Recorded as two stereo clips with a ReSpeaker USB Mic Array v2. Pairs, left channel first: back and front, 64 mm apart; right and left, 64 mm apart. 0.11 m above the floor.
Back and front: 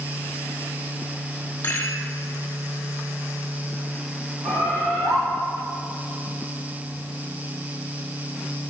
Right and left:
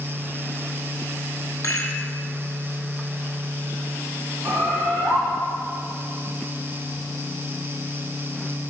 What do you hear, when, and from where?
1.6 s a rattle: 130° right, 1.5 m
4.4 s a bird: 30° left, 3 m